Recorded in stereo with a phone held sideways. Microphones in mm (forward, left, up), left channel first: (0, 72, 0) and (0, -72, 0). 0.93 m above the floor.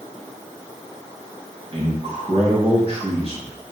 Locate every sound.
1.7 s a man speaking: 45° right (ahead or behind), 3 m